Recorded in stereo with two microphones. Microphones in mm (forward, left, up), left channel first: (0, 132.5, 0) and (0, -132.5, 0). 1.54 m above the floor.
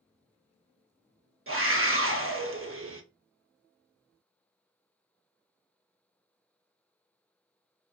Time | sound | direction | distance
1.5 | a scream | 55° right (ahead or behind) | 0.7 m